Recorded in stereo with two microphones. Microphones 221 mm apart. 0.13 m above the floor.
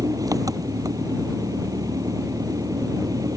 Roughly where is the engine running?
Centre.